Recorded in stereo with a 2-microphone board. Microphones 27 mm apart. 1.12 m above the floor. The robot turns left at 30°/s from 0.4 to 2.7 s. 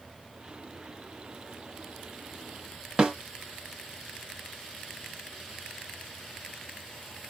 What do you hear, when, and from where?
3.0 s a snare drum: 30° right (ahead or behind), 1.4 m